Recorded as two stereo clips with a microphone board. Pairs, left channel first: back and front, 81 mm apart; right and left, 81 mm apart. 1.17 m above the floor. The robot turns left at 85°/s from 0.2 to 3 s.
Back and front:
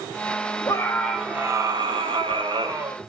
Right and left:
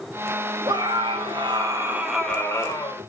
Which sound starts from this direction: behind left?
A scream, at 0.7 s.